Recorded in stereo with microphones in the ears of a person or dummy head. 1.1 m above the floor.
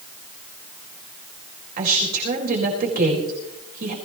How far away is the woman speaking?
About 4.5 m.